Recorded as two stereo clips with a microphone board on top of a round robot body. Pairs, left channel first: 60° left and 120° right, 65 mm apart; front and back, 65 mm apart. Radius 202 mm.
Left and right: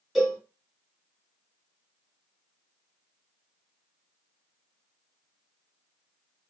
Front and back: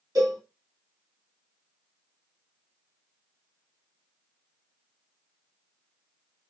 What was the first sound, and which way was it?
A cowbell, 150° left.